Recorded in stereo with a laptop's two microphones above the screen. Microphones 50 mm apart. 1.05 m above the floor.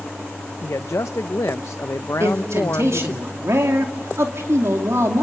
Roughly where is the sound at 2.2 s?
Right.